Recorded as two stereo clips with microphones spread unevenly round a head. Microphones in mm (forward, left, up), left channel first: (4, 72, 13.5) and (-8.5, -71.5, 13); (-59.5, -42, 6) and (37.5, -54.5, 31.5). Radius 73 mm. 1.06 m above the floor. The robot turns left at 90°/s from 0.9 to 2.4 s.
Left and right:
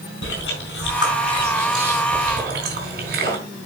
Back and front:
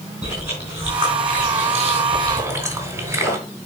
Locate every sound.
0.2 s chewing: 70° left, 4 m; by 3.4 s 65° right, 4 m